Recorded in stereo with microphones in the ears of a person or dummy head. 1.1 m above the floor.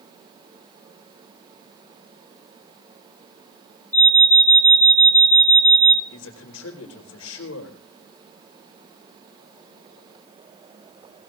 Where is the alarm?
10° left (ahead or behind), 3 m.